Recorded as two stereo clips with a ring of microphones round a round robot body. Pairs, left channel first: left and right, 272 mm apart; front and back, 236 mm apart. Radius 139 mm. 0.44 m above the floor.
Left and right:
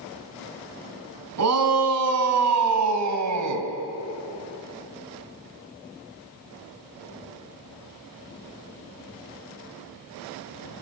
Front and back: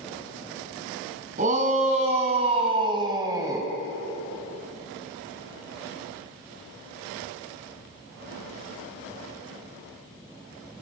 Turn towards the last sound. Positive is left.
turn(degrees=-100)